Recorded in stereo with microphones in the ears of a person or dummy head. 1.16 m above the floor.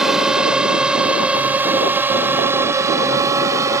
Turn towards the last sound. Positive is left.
turn(degrees=-15)  # may be behind; listen again after turning